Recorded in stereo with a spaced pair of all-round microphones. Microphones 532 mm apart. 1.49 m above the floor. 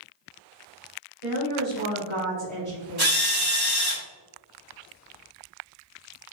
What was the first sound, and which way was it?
A woman speaking, 85° right.